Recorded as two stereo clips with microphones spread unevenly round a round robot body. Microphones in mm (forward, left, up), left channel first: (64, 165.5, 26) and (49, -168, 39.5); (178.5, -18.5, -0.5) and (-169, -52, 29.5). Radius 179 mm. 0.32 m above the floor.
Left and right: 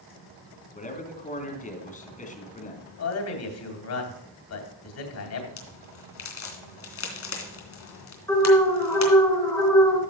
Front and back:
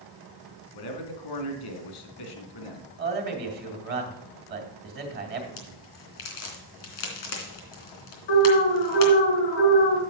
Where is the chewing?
No chewing in this recording.